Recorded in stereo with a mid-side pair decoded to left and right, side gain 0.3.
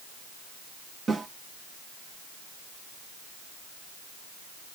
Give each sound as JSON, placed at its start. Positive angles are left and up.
{"t": 1.1, "sound": "a snare drum", "azimuth_deg": -55, "distance_m": 2.0}